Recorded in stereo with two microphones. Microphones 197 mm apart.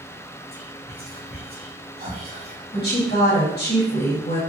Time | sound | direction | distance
0.5 | whispering | 50° right (ahead or behind) | 2.0 m
2.7 | a woman speaking | 55° left (ahead or behind) | 1.9 m